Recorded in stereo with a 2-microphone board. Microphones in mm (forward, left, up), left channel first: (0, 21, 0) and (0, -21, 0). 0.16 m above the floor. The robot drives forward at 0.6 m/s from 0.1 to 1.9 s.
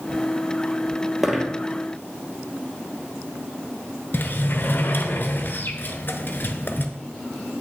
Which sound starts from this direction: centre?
A dropped coin, at 1.2 s.